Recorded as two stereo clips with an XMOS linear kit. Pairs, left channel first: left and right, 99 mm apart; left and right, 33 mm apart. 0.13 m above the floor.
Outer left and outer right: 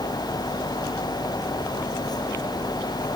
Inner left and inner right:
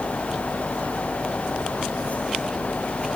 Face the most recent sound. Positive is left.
No sound to turn to.